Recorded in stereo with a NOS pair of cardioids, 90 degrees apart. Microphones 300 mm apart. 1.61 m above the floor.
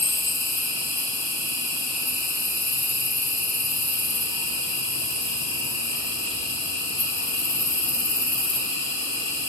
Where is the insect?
45° left, 2.5 m.